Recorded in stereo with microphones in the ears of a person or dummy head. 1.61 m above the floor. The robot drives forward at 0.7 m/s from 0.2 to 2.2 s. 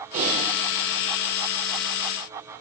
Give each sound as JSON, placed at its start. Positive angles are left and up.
{"t": 0.1, "sound": "typing on a keyboard", "side_deg": -40, "distance_m": 4.0}